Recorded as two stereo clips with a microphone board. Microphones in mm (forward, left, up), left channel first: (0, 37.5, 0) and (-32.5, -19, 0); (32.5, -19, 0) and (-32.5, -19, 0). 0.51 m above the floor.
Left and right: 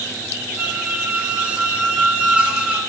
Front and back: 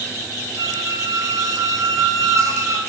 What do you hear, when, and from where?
0.6 s a squeak: 170° left, 1.2 m